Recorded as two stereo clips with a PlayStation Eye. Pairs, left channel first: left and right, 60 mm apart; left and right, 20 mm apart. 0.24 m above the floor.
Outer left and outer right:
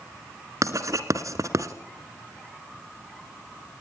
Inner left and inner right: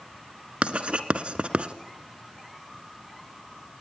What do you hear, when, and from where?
0.6 s writing: 65° right (ahead or behind), 1.8 m